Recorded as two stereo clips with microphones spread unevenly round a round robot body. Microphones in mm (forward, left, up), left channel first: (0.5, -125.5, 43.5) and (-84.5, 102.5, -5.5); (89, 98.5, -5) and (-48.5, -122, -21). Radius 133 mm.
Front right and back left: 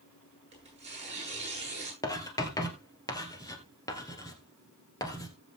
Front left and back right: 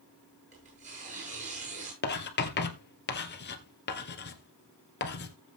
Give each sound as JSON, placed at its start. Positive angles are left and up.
{"t": 0.5, "sound": "tearing paper", "azimuth_deg": 175, "distance_m": 9.5}
{"t": 2.0, "sound": "writing", "azimuth_deg": 5, "distance_m": 1.9}